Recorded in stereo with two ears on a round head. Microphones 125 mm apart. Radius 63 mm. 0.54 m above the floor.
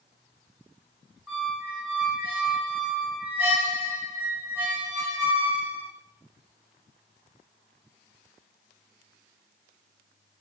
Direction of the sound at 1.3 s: 10° right (ahead or behind).